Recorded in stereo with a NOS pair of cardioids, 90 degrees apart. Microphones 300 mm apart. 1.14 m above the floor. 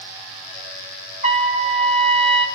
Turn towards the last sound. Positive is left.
turn(degrees=-25)